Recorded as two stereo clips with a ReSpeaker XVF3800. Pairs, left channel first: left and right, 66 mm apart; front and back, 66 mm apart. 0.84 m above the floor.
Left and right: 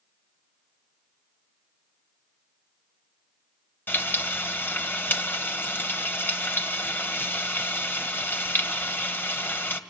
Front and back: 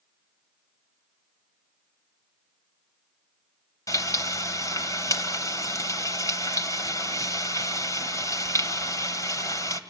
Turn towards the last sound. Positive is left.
turn(degrees=30)